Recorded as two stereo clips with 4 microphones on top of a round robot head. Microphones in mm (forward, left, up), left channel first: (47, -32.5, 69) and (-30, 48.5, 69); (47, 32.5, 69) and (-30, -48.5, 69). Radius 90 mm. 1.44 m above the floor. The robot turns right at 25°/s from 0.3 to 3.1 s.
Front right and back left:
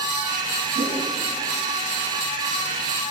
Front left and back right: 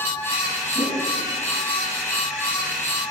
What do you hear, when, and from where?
0.8 s a whoosh: 170° left, 3 m; by 1.1 s 175° left, 3 m